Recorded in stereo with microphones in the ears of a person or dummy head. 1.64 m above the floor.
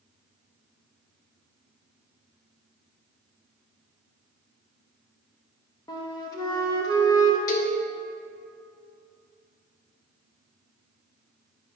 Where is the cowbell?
50° left (ahead or behind), 1.1 m.